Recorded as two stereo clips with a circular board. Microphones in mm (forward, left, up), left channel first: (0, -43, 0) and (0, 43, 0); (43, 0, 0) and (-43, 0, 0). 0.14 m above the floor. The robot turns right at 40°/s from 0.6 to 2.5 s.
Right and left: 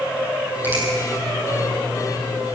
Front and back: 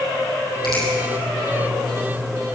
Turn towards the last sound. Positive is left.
turn(degrees=95)